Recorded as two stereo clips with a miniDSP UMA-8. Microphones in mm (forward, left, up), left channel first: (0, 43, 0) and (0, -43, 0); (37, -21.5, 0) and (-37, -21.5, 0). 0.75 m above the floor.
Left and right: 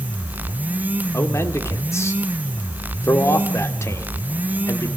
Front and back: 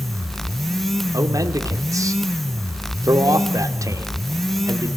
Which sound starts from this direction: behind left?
A man speaking, at 1.1 s.